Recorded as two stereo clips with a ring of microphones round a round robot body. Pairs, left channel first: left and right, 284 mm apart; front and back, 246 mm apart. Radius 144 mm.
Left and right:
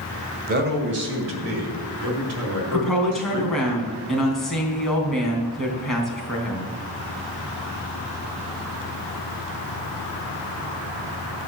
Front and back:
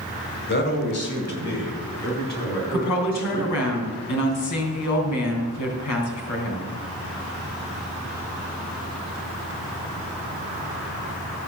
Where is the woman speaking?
Straight ahead, 3.5 m.